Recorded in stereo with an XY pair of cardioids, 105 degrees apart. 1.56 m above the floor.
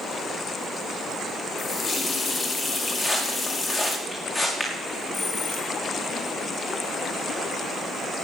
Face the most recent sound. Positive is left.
turn(degrees=55)